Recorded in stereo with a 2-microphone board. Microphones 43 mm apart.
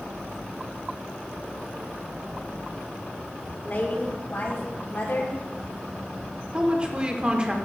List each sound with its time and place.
3.6 s a woman speaking: 55° left (ahead or behind), 2.5 m; by 5.4 s 65° left (ahead or behind), 2.5 m
6.5 s a woman speaking: 20° right (ahead or behind), 0.9 m